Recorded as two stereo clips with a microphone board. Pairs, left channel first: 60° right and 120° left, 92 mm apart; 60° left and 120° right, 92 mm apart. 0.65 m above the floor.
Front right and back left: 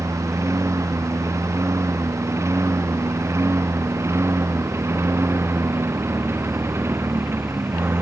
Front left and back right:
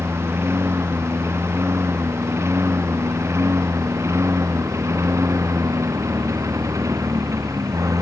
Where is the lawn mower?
175° left; by 8.0 s 175° right.